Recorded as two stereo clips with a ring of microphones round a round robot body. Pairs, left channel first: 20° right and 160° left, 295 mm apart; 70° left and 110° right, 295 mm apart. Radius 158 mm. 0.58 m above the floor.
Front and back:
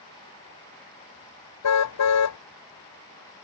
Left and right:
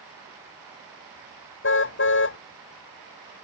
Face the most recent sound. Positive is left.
turn(degrees=15)